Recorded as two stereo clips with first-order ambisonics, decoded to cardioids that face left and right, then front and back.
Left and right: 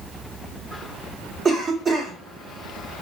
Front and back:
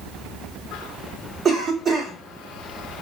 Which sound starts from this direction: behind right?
A cough, at 1.4 s.